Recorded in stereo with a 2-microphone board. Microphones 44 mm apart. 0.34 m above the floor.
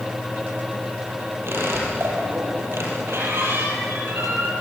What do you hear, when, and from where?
1.5 s a squeak: 60° right (ahead or behind), 6 m